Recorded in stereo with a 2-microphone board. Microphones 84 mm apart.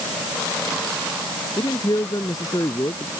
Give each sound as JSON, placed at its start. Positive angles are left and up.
{"t": 1.6, "sound": "a man speaking", "side_deg": 55}